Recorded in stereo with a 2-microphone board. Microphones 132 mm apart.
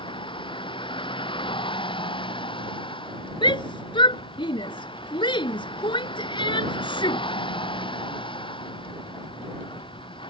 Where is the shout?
40° left (ahead or behind).